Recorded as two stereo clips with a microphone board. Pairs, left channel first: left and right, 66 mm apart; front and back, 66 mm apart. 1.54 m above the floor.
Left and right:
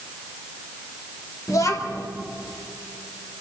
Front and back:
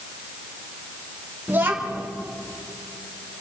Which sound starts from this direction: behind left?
A child speaking, at 1.5 s.